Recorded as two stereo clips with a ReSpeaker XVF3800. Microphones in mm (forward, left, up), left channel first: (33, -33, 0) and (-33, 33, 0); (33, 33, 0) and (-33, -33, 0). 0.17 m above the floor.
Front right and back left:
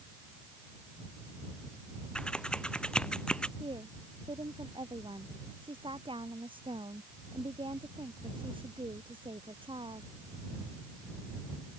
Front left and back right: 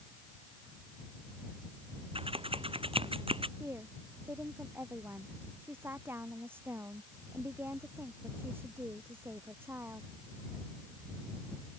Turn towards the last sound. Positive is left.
turn(degrees=160)